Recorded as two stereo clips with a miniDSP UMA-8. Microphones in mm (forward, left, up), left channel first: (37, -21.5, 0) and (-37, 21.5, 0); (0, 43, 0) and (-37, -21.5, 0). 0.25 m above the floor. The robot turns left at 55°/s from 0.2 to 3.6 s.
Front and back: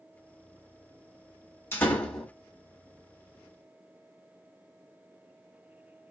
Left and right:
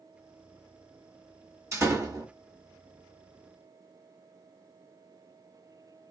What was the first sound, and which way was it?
A door slam, 85° right.